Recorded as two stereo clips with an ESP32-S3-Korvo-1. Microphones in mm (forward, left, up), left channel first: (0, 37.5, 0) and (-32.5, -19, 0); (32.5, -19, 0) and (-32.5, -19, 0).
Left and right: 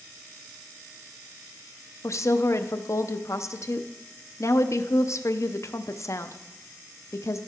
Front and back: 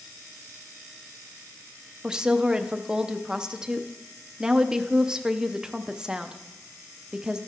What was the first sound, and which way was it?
A woman speaking, 100° left.